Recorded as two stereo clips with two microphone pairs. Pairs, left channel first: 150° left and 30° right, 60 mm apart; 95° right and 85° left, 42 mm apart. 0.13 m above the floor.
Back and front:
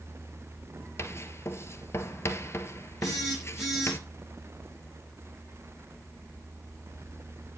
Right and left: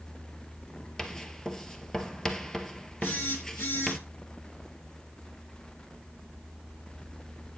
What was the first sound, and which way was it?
Writing, 170° right.